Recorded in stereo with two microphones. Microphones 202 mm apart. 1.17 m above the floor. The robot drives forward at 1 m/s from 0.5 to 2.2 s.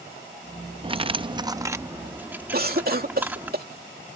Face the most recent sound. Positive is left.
turn(degrees=-45)  # may be behind; listen again after turning